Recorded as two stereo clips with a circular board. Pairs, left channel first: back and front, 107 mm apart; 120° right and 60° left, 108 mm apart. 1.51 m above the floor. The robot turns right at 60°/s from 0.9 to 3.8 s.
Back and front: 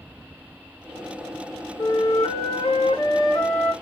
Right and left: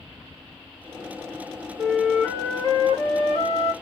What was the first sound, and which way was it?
A flute, 145° left.